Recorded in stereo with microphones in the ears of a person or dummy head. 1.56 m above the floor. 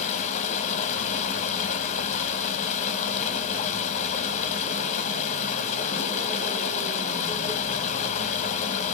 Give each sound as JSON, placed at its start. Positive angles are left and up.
{"t": 0.0, "sound": "running water", "side_deg": 40, "distance_m": 1.2}